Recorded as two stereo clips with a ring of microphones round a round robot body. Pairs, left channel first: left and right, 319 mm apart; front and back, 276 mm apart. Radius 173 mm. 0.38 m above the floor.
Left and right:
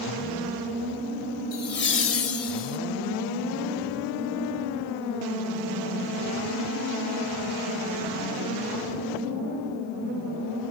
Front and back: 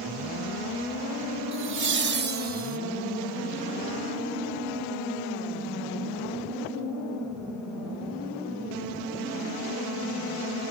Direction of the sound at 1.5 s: 150° left.